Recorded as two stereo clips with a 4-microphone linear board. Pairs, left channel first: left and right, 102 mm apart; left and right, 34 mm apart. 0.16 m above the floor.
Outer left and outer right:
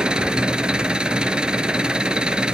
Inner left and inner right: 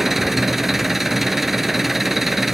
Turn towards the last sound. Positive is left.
turn(degrees=-10)  # may be behind; listen again after turning